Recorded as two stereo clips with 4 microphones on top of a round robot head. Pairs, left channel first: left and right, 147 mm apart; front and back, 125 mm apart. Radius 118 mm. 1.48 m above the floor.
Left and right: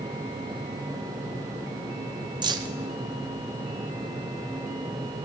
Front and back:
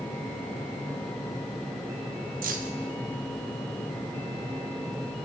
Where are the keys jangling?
150° right, 0.7 m.